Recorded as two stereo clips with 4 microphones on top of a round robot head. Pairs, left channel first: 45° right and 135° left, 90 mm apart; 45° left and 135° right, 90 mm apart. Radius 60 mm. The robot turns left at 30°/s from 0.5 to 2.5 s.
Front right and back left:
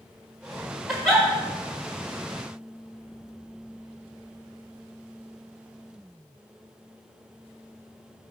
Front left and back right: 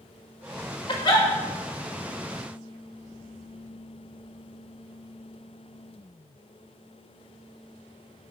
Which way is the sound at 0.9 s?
45° left.